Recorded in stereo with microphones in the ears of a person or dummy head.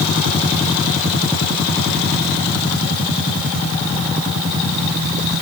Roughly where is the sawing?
I don't hear sawing.